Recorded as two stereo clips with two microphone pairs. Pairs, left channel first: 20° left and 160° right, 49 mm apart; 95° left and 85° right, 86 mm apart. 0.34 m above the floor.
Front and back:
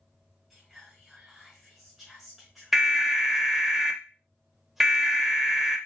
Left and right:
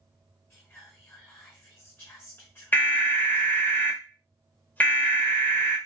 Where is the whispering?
125° left, 0.9 m.